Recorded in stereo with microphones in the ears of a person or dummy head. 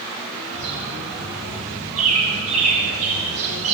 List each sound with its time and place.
0.5 s a bird: 45° right (ahead or behind), 4.5 m